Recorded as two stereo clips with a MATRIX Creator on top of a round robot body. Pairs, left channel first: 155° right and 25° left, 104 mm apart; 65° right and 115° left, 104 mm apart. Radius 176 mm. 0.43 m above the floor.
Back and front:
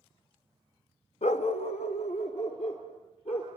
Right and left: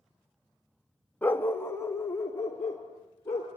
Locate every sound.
1.2 s a dog barking: 145° right, 0.6 m; by 3.5 s 135° right, 4 m